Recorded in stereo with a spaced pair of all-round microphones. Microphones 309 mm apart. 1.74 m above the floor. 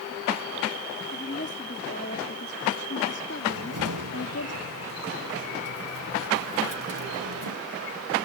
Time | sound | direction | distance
1.1 | a woman speaking | 35° left (ahead or behind) | ?
3.5 | a cupboard door | 80° right | ?